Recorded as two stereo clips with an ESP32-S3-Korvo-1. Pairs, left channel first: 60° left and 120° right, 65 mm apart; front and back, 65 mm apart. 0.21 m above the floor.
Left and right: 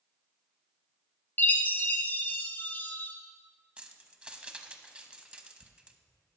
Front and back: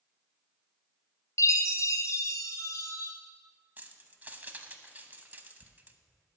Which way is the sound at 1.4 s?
5° left.